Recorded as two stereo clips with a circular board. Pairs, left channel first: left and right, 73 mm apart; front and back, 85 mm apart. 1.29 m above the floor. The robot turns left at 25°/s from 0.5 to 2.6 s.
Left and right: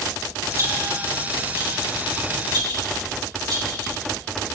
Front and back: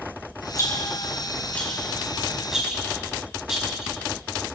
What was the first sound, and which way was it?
A rattle, 45° right.